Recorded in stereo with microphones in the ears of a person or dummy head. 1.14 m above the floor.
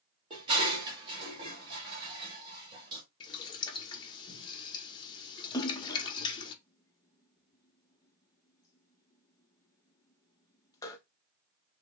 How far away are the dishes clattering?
About 1.7 m.